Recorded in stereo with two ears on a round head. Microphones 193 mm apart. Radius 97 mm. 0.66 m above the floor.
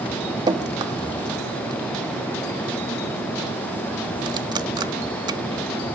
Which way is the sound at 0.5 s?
20° right (ahead or behind).